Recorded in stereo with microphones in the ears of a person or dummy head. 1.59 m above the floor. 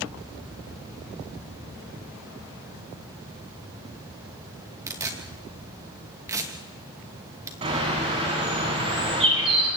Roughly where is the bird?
Right.